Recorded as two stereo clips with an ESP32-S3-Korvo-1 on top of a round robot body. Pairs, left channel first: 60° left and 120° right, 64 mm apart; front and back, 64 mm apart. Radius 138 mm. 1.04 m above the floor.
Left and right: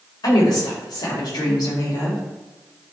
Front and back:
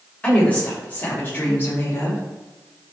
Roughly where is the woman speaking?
Left.